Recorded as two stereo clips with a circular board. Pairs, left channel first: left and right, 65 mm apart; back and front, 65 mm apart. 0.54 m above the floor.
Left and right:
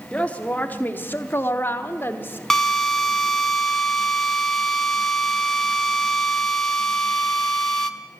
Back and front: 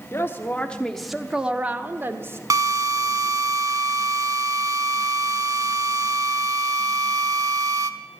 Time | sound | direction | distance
0.1 | a woman speaking | 155° left | 1.1 m
2.5 | a drill | 10° left | 1.0 m